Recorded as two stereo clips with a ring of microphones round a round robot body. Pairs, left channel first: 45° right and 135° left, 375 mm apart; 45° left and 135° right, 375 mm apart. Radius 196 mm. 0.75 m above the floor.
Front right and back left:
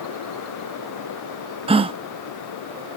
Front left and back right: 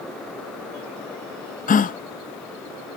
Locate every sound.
1.7 s a gasp: 80° left, 0.6 m